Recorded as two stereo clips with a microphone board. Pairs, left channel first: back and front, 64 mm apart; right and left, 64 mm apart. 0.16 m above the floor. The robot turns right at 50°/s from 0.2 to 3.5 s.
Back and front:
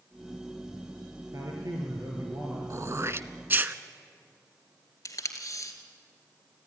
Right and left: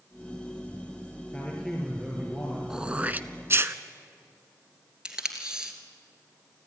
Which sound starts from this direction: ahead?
Throat clearing, at 2.7 s.